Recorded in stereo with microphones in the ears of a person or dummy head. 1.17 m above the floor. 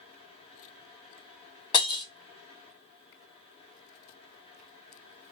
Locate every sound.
0.0 s a fan: 25° left (ahead or behind), 1.2 m
1.7 s breaking glass: 25° left (ahead or behind), 1.0 m